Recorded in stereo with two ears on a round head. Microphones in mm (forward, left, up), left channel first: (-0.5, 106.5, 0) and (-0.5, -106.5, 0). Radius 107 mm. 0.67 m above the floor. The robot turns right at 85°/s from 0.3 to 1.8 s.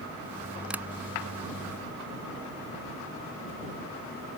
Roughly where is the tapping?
Centre.